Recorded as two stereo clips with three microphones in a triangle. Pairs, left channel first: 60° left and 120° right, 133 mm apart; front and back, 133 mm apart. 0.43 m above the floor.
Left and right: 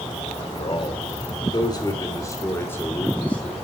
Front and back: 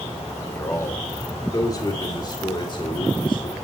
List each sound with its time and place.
0.4 s a man speaking: 65° left, 1.9 m; by 3.5 s 15° right, 1.8 m